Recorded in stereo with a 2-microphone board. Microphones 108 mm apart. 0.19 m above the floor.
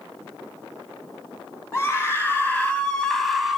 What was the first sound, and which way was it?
A scream, 20° left (ahead or behind).